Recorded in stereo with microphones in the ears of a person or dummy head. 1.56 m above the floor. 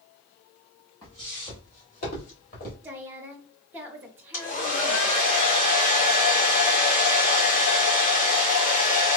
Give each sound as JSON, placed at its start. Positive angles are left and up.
{"t": 1.0, "sound": "footsteps", "side_deg": 20, "distance_m": 1.9}
{"t": 2.8, "sound": "a woman speaking", "side_deg": -10, "distance_m": 0.8}
{"t": 4.3, "sound": "a hair dryer", "side_deg": 45, "distance_m": 1.3}